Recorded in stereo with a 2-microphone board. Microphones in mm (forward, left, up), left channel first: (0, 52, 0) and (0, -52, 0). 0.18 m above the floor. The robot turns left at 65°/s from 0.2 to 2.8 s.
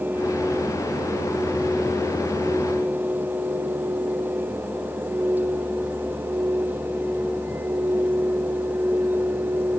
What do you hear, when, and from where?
Only background noise.